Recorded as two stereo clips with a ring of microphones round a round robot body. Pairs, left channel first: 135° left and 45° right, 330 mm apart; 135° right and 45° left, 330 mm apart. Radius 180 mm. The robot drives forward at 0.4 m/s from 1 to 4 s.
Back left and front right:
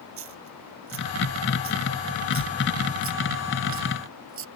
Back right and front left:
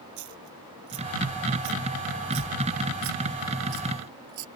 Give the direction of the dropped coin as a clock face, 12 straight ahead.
12 o'clock.